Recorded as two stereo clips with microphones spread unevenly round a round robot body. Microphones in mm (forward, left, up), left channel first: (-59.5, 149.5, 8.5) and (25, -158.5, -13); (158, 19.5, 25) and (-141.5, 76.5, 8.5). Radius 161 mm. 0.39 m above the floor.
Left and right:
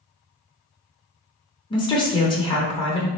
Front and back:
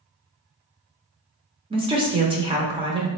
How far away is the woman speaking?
About 0.8 m.